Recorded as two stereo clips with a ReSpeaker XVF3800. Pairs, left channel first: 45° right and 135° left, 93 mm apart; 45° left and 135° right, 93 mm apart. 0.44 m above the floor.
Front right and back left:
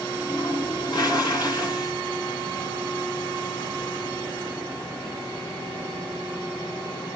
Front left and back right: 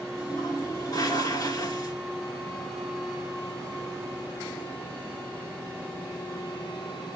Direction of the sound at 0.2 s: Straight ahead.